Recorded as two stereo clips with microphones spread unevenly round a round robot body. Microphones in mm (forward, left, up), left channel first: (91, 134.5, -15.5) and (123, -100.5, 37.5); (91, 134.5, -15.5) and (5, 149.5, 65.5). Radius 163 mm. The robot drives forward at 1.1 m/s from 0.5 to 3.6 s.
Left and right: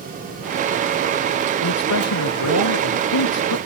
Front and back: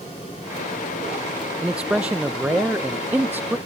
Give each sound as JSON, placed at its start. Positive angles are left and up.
{"t": 1.6, "sound": "a man speaking", "azimuth_deg": 95}